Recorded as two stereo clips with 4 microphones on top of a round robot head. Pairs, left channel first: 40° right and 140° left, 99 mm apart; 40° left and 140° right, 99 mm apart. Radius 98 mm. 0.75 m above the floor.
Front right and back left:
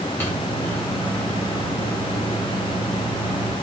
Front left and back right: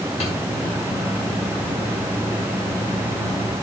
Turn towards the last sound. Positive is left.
turn(degrees=30)